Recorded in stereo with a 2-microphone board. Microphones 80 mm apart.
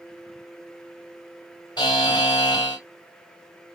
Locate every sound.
1.8 s a buzzer: 60° left (ahead or behind), 1.6 m